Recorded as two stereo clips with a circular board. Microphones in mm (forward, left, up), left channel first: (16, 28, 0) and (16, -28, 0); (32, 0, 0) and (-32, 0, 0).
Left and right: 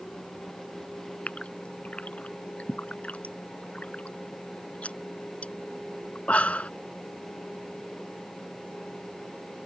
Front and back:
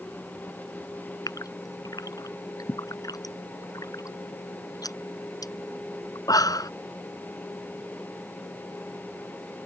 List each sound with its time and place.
1.3 s a gasp: 20° left